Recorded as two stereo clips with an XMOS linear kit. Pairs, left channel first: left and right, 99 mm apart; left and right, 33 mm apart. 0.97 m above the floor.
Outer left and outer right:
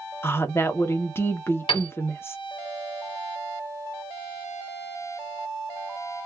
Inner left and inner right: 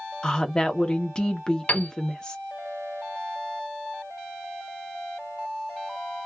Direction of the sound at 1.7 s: 55° left (ahead or behind).